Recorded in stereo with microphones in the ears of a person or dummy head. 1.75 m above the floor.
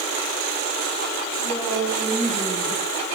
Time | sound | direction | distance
1.4 | a woman speaking | 10° right (ahead or behind) | 5.5 m